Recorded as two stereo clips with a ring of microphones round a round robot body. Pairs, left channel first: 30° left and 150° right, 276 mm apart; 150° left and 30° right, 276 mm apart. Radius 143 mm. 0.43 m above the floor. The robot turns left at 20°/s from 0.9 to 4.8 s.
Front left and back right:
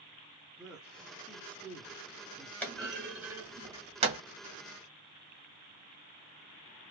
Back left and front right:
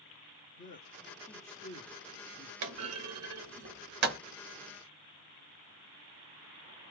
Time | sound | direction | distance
0.6 | a man speaking | 125° left | 0.9 m
2.6 | a clunk | 55° right | 1.0 m